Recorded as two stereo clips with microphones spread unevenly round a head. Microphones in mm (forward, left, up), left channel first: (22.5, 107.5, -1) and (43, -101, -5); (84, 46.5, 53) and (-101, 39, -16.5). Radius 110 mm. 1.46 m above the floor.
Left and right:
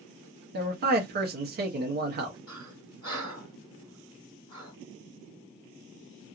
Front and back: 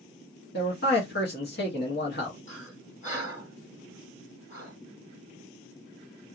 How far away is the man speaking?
About 0.8 m.